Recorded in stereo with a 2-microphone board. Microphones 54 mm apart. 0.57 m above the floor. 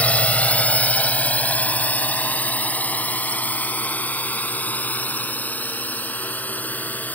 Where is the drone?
25° left (ahead or behind); by 7.2 s 30° left (ahead or behind).